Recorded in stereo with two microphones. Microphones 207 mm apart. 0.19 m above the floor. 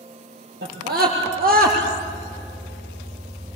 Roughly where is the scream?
Right.